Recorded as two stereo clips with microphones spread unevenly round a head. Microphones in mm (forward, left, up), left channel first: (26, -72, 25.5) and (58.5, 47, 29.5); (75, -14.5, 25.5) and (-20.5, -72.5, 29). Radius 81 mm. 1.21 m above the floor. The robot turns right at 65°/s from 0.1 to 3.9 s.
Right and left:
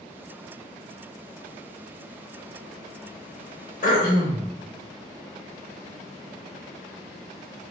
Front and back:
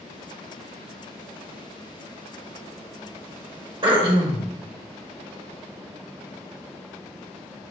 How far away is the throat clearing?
About 0.9 m.